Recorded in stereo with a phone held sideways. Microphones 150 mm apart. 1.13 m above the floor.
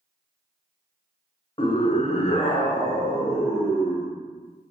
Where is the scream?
35° left (ahead or behind), 0.7 m; by 4.1 s 5° left (ahead or behind), 1.8 m.